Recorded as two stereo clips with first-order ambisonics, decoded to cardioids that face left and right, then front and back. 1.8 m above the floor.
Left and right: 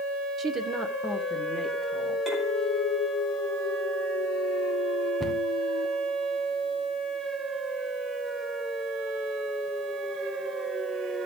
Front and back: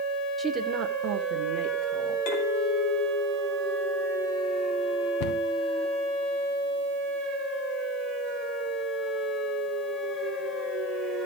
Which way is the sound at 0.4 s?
95° right.